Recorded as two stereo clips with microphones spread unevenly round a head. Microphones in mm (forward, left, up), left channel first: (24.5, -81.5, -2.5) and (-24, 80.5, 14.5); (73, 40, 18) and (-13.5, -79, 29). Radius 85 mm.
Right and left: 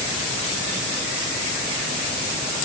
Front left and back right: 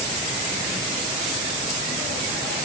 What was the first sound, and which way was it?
Only background noise.